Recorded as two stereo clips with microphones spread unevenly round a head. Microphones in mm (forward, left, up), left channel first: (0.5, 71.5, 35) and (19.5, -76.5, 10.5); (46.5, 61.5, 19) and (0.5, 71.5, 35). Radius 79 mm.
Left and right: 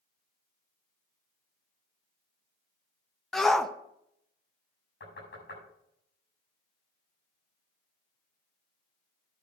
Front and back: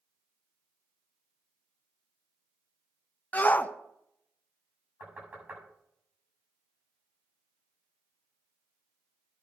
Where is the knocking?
115° left, 7 m.